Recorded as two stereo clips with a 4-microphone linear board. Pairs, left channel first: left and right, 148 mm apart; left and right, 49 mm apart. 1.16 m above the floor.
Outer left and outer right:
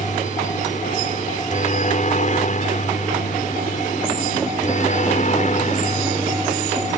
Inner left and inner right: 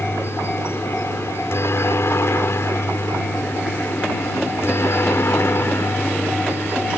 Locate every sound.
0.0 s a helicopter: 55° left (ahead or behind)